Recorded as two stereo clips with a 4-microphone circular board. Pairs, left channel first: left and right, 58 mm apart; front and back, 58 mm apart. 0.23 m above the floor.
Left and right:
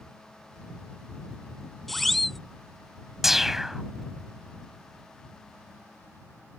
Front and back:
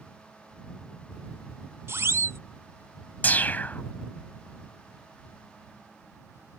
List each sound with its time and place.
1.9 s a siren: 175° left
3.2 s a whoosh: 10° right